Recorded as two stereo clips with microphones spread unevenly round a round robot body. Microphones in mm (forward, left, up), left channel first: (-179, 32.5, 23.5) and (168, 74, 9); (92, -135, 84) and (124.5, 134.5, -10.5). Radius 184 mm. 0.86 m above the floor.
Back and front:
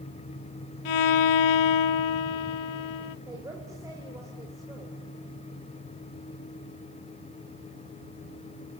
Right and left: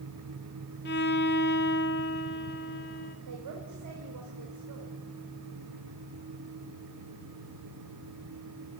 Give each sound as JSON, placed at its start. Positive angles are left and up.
{"t": 0.8, "sound": "a violin", "azimuth_deg": -165, "distance_m": 0.7}
{"t": 3.3, "sound": "a woman speaking", "azimuth_deg": 90, "distance_m": 3.5}